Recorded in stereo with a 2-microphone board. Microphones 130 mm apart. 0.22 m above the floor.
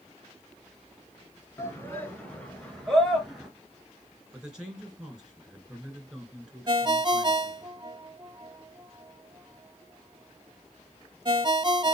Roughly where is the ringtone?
Right.